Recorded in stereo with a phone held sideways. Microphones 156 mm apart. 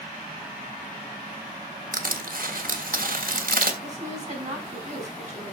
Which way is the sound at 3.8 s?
50° right (ahead or behind).